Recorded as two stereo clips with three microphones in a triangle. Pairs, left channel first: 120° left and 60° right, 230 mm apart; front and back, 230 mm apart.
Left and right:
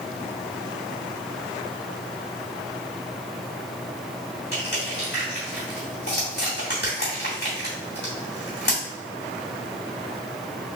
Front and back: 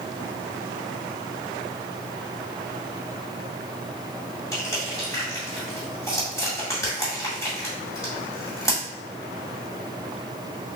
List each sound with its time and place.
4.5 s crushing: 75° left, 2 m